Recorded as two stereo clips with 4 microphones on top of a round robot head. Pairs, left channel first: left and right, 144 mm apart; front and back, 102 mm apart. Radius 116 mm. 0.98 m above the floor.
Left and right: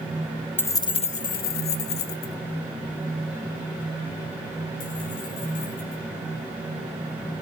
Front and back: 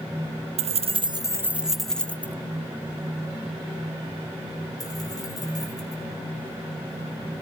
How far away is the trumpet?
I don't hear a trumpet.